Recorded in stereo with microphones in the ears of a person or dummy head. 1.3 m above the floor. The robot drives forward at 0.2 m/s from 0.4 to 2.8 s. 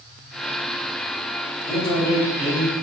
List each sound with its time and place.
1.6 s a man speaking: 30° left (ahead or behind), 1.0 m; by 2.7 s 25° left (ahead or behind), 1.1 m